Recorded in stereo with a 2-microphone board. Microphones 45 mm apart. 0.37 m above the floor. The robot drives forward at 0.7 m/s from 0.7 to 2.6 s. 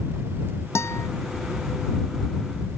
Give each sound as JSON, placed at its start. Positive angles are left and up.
{"t": 0.8, "sound": "a guitar", "side_deg": 80}